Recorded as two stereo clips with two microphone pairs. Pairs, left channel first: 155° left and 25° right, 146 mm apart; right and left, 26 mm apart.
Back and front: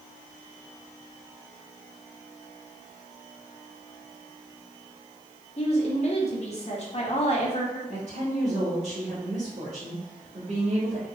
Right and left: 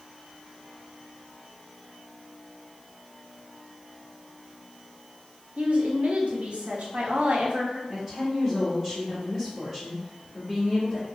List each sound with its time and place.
5.6 s a woman speaking: 110° left, 0.9 m
7.9 s a woman speaking: 5° left, 1.4 m